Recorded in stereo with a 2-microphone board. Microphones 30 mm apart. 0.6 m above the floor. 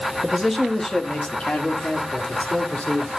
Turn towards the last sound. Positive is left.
turn(degrees=60)  # may be behind; listen again after turning